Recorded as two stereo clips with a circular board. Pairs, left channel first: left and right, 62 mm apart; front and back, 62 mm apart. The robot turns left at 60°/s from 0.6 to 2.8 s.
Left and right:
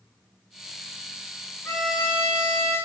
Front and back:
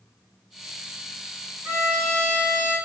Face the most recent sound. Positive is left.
turn(degrees=55)